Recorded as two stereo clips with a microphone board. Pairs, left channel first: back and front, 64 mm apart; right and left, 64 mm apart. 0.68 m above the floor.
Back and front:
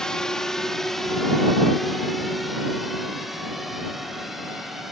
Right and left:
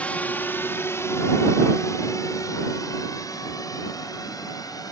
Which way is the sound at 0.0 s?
115° right.